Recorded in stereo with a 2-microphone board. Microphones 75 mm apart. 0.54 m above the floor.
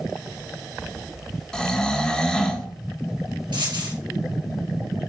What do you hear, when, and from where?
1.5 s snoring: 10° left (ahead or behind), 1.0 m
3.5 s a dropped coin: 85° right, 3.5 m